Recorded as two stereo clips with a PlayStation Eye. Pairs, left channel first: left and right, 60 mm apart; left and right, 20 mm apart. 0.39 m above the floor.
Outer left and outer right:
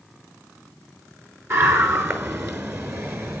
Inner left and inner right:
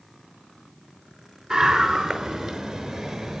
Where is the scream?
45° right (ahead or behind), 4.5 m.